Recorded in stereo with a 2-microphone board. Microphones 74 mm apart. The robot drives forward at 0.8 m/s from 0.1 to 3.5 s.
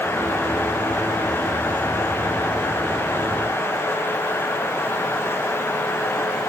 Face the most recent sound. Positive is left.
No sound to turn to.